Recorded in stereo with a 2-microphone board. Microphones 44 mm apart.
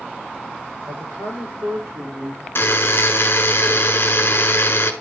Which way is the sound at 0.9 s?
80° right.